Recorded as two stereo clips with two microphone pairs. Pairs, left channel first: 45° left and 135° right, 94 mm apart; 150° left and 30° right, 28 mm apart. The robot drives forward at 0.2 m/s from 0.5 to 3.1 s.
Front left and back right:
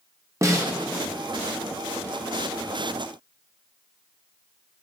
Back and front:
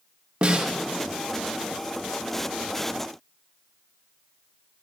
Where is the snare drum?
80° right, 1.0 m.